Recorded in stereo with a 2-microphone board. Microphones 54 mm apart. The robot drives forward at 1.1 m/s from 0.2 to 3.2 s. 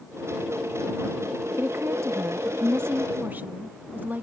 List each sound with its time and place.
1.6 s a woman speaking: 45° right (ahead or behind); by 4.2 s 35° right (ahead or behind)